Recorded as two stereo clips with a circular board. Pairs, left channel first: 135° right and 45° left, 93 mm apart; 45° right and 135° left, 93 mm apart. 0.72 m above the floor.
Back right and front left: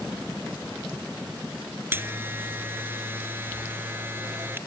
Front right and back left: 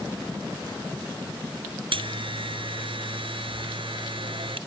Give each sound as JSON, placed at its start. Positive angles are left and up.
{"t": 1.9, "sound": "a buzzer", "azimuth_deg": 115}